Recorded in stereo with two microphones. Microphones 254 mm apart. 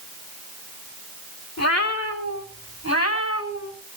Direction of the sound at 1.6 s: 85° left.